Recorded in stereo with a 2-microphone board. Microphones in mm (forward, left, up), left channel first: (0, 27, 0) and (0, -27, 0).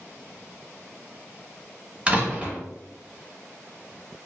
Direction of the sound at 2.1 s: 25° right (ahead or behind).